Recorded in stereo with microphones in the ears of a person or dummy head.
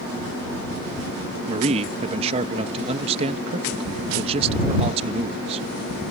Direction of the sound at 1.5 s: 35° right (ahead or behind).